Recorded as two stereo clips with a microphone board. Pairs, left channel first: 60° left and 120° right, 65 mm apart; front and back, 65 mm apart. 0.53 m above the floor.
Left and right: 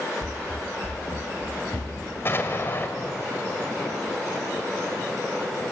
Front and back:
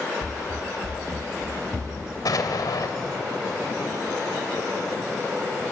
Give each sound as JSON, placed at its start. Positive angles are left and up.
{"t": 0.2, "sound": "running footsteps", "azimuth_deg": 85, "distance_m": 0.5}
{"t": 2.2, "sound": "an explosion", "azimuth_deg": 10, "distance_m": 2.5}